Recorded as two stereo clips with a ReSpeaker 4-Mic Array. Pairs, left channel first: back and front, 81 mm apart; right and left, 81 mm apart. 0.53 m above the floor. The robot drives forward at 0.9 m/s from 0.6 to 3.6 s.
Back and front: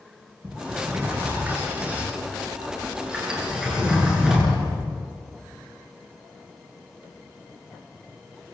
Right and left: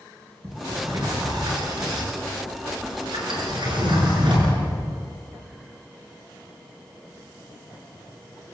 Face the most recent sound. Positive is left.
turn(degrees=80)